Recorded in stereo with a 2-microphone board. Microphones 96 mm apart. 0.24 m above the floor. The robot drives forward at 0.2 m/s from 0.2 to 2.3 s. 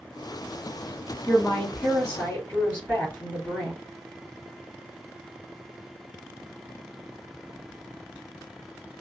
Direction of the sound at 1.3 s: 25° left (ahead or behind).